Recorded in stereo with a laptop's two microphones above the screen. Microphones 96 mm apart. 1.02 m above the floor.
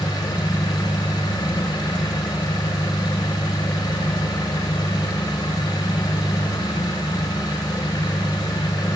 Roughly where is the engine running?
Left.